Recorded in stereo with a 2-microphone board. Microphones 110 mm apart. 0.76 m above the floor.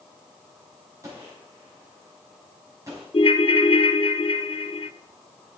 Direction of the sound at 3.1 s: 55° left (ahead or behind).